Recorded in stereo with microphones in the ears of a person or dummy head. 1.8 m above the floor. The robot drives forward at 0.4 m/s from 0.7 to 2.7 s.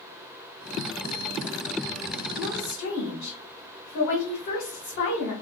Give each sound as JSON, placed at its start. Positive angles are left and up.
{"t": 2.4, "sound": "a woman speaking", "side_deg": 80, "distance_m": 1.1}